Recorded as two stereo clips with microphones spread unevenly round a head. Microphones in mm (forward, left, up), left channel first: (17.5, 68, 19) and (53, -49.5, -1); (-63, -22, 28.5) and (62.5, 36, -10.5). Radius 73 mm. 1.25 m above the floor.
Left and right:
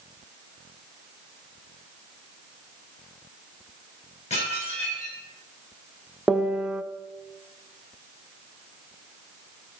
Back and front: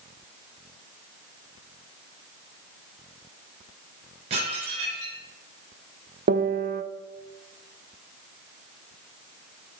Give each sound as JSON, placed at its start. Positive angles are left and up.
{"t": 4.3, "sound": "dishes clattering", "azimuth_deg": 75, "distance_m": 5.0}
{"t": 6.3, "sound": "a piano", "azimuth_deg": 10, "distance_m": 0.7}